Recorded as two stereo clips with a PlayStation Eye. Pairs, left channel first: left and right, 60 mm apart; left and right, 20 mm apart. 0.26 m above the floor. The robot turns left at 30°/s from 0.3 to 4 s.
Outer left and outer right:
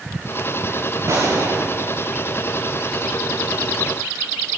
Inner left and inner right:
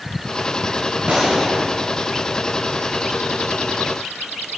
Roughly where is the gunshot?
Right.